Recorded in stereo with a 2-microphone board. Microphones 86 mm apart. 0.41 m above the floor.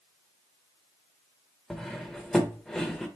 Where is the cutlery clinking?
5° left (ahead or behind), 0.6 m.